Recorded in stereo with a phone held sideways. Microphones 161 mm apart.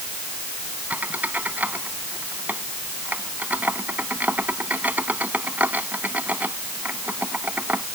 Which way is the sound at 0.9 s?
10° right (ahead or behind).